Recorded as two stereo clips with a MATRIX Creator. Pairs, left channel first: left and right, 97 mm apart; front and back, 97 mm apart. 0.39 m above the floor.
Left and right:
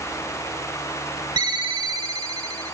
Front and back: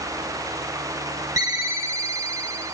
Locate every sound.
1.4 s a ringtone: 125° right, 0.8 m